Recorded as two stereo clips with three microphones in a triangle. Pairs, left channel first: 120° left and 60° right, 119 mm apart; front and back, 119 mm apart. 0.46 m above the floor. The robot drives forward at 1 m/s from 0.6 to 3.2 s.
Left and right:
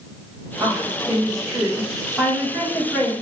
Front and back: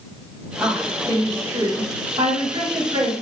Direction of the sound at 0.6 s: 80° right.